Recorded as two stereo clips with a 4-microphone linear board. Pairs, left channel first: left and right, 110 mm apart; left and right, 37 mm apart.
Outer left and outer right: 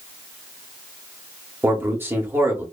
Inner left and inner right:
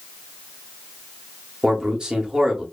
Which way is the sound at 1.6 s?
20° right (ahead or behind).